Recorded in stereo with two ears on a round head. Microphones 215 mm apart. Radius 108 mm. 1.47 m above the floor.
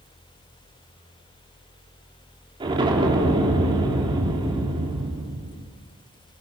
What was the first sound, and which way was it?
An explosion, 20° right (ahead or behind).